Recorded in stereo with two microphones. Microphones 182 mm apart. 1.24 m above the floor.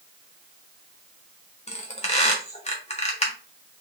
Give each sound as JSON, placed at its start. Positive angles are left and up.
{"t": 1.7, "sound": "a squeak", "side_deg": 35, "distance_m": 1.3}